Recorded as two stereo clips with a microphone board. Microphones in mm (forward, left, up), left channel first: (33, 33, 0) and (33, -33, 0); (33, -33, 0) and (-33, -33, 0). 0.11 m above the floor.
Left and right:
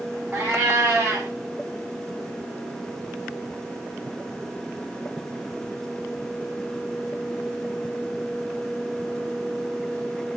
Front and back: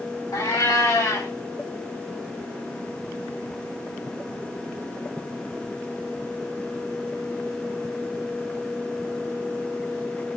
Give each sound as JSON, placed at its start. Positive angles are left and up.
{"t": 0.3, "sound": "a cat meowing", "azimuth_deg": -20, "distance_m": 4.0}